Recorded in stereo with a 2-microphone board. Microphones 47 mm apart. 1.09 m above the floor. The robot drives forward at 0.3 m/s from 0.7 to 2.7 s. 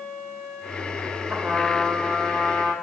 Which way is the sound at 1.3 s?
15° right (ahead or behind).